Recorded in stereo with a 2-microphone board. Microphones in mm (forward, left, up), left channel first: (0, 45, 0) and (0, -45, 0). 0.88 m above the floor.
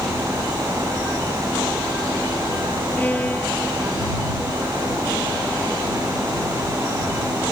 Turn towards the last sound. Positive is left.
turn(degrees=20)  # may be behind; listen again after turning